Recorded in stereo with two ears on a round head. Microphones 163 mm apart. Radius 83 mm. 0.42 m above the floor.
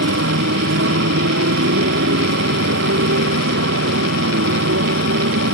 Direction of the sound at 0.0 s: 70° right (ahead or behind).